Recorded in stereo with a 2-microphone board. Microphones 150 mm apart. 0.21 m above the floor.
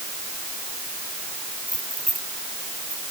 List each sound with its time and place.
1.7 s keys jangling: 60° right (ahead or behind)